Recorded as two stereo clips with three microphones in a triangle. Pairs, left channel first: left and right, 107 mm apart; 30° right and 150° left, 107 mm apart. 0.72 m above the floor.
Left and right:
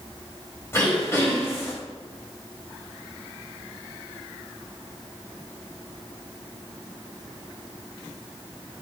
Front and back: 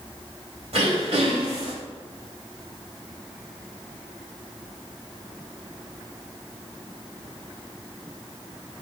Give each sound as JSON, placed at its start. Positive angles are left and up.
{"t": 0.7, "sound": "throat clearing", "azimuth_deg": 155, "distance_m": 2.5}